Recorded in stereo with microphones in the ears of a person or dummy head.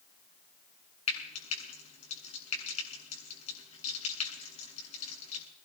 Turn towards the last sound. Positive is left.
turn(degrees=35)  # may be behind; listen again after turning